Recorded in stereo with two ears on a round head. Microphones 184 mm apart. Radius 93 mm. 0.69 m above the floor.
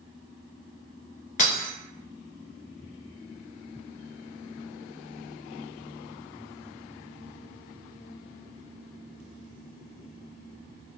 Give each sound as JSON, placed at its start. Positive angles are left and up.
{"t": 1.4, "sound": "breaking glass", "side_deg": 40, "distance_m": 1.2}